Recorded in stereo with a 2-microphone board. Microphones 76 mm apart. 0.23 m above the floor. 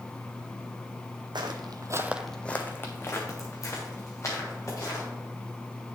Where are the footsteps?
80° right, 0.9 m; by 5.0 s 45° left (ahead or behind), 4 m.